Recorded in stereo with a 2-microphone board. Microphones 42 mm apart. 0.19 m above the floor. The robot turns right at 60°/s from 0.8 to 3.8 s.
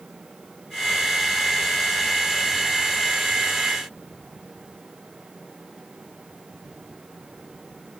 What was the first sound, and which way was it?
Only background noise.